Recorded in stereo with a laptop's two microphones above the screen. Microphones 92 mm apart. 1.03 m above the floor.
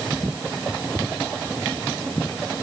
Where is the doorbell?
I don't hear a doorbell.